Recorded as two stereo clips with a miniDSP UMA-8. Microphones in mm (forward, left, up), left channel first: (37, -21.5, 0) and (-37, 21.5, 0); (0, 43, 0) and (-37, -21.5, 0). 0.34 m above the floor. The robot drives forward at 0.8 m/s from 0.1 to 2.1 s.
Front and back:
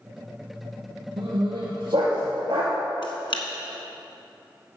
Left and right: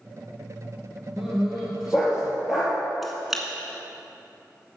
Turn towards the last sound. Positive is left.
turn(degrees=-30)